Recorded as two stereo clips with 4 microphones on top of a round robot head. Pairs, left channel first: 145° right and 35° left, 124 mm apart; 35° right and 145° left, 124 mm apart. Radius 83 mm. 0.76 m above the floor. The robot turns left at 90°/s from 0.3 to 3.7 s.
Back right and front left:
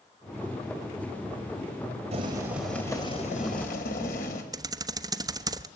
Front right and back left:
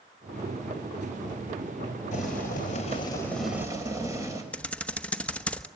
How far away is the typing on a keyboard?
About 1.1 m.